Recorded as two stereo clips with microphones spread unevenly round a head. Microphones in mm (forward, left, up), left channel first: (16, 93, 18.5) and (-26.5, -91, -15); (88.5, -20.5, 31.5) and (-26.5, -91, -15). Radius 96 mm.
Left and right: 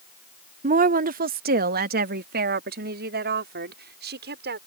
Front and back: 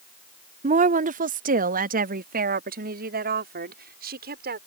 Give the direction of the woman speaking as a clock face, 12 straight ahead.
5 o'clock.